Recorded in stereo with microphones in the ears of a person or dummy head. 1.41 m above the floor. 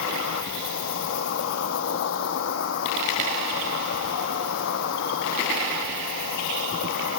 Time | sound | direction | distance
0.0 | an insect | 70° left (ahead or behind) | 0.8 m